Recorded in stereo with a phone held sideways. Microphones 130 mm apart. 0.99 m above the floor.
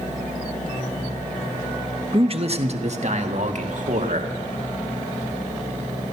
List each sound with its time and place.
2.1 s a man speaking: 40° right (ahead or behind), 0.9 m; by 4.3 s 65° right (ahead or behind), 2 m